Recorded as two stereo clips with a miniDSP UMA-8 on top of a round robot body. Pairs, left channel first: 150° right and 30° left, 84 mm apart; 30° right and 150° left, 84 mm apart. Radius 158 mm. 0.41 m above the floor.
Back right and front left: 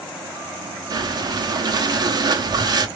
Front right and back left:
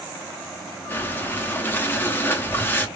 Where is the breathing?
30° left, 1.4 m.